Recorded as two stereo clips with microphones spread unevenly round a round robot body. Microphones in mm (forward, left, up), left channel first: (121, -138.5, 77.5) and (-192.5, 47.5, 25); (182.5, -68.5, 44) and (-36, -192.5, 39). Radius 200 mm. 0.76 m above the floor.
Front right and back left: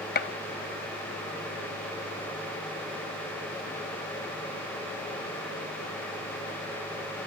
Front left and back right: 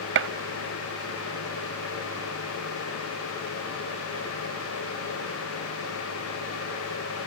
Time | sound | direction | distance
0.1 | a gunshot | 100° right | 0.5 m